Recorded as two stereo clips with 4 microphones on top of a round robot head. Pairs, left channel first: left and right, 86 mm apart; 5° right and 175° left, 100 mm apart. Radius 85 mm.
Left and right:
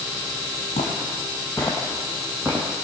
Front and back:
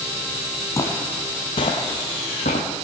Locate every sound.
0.8 s footsteps: 55° left, 1.2 m; by 2.7 s 20° right, 1.2 m